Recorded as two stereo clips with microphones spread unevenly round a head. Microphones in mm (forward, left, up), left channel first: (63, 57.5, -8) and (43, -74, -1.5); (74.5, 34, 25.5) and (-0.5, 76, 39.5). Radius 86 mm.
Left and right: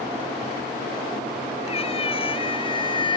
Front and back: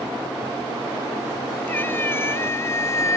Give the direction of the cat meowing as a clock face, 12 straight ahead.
11 o'clock.